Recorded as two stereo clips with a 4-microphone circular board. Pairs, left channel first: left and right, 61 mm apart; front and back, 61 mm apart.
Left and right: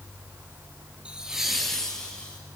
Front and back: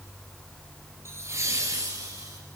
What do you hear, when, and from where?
1.1 s laughter: 155° right, 2 m; by 2.4 s 160° left, 2.5 m